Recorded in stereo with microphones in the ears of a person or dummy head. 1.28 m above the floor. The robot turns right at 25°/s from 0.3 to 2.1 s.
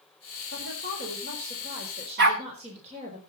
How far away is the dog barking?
About 1.5 m.